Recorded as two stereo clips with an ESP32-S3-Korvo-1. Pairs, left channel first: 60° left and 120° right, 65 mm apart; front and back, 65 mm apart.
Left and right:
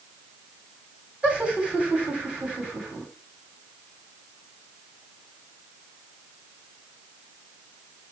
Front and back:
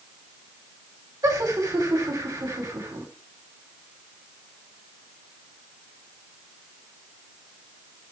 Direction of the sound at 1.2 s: 165° left.